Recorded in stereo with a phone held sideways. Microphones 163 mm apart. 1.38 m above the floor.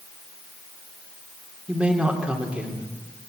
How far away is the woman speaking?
About 3 m.